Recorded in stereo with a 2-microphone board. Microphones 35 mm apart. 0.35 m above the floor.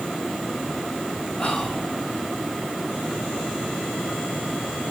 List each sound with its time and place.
1.4 s whispering: 25° left (ahead or behind), 1.4 m